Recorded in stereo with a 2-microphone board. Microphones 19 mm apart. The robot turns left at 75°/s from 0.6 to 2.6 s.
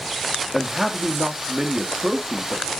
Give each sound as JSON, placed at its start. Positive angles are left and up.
{"t": 0.5, "sound": "a man speaking", "azimuth_deg": -5, "distance_m": 0.9}